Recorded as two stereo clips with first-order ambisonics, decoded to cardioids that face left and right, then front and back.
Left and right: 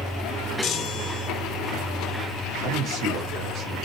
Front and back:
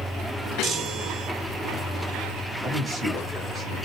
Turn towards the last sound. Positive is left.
turn(degrees=-95)